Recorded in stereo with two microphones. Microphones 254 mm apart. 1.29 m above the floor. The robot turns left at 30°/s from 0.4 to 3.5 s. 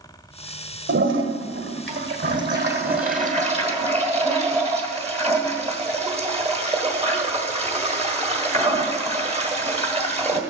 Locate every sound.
0.9 s a toilet flushing: 70° right, 1.5 m; by 10.4 s 145° right, 1.5 m